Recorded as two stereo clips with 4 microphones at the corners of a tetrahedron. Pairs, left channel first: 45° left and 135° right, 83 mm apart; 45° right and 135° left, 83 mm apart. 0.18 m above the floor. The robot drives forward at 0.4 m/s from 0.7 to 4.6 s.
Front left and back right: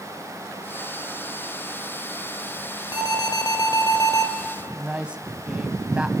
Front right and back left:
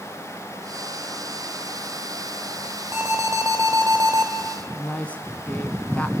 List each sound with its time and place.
2.9 s an alarm: 80° left, 3.5 m; by 4.3 s 85° left, 3 m
4.8 s a woman speaking: 80° right, 1.2 m